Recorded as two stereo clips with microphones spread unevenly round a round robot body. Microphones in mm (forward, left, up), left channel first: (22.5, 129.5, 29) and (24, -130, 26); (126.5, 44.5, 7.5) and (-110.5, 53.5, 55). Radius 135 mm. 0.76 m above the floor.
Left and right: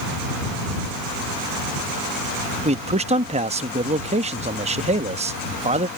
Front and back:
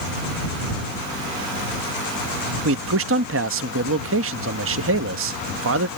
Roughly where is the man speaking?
Behind right.